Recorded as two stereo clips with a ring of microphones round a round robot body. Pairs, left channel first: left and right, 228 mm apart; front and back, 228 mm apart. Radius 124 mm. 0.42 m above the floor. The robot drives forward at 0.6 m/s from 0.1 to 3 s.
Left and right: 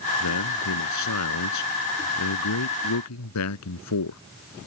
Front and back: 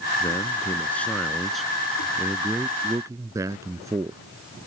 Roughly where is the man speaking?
Left.